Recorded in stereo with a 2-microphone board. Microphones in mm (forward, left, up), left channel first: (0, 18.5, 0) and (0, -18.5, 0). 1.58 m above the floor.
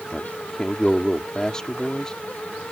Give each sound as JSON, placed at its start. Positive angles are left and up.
{"t": 0.1, "sound": "a man speaking", "side_deg": 20}